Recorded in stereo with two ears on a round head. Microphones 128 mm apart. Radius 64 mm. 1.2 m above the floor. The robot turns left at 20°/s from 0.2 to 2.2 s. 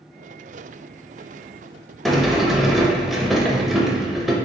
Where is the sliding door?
Centre (ahead or behind), 0.5 m.